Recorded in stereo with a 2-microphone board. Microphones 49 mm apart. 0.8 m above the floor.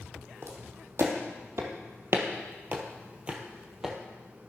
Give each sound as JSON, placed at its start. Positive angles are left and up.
{"t": 0.4, "sound": "footsteps", "side_deg": -60, "distance_m": 2.0}